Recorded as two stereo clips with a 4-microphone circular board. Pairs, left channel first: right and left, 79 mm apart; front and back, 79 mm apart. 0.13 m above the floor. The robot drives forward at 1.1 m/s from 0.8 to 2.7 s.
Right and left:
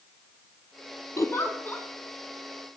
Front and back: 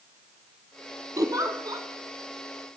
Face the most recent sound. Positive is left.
turn(degrees=-170)